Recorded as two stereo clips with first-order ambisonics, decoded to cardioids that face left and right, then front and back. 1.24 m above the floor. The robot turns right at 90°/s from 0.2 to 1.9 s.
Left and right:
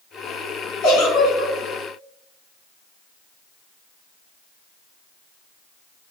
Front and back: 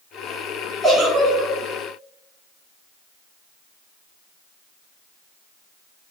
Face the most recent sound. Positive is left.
turn(degrees=-170)